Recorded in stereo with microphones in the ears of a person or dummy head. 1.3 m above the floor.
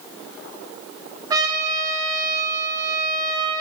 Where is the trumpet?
20° right (ahead or behind), 2 m.